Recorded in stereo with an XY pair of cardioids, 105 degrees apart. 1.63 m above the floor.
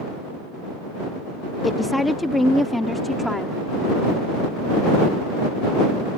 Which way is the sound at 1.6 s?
15° left.